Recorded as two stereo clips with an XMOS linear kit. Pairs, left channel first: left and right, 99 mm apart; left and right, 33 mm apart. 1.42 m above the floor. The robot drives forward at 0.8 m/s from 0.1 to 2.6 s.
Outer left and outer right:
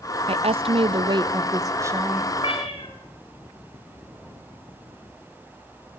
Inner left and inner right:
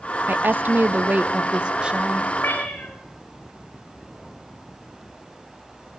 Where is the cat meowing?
70° left (ahead or behind), 3.5 m.